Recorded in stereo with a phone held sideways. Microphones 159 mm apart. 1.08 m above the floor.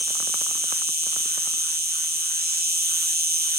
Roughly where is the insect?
Right.